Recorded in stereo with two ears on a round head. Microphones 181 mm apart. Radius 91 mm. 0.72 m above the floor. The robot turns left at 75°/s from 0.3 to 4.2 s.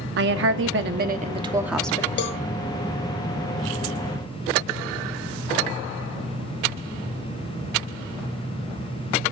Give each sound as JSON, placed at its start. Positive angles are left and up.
{"t": 0.2, "sound": "a woman speaking", "azimuth_deg": -70, "distance_m": 0.9}
{"t": 2.2, "sound": "a cowbell", "side_deg": 55, "distance_m": 0.8}